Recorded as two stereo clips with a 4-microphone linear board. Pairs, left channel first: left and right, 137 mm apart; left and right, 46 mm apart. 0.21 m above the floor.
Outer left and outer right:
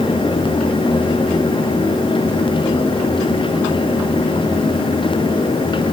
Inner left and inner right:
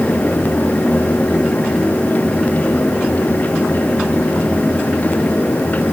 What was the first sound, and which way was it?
Only background noise.